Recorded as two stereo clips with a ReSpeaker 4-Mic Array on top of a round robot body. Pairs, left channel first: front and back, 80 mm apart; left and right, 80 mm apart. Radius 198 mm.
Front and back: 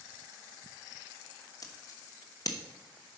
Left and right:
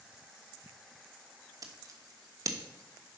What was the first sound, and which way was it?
Scissors, 45° right.